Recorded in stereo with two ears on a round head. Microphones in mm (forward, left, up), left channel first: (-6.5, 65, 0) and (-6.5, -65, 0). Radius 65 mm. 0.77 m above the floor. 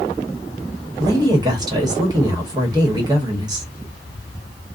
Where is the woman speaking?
25° right (ahead or behind), 1.1 m.